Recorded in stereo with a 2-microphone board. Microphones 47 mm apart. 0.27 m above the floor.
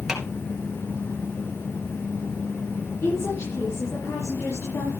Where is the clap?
5° right (ahead or behind), 3 m.